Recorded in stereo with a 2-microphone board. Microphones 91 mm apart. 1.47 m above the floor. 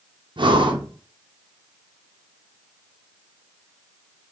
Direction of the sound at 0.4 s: 60° right (ahead or behind).